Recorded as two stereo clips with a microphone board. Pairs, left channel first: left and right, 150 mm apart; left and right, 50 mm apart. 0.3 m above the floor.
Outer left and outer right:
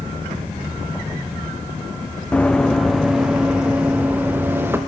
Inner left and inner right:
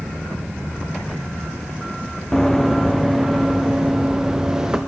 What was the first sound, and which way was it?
Running footsteps, 10° left (ahead or behind).